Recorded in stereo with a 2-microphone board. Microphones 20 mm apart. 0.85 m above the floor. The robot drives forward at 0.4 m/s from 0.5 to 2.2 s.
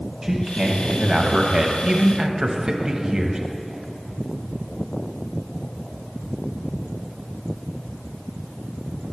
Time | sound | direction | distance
0.2 | a man speaking | 25° right (ahead or behind) | 1.1 m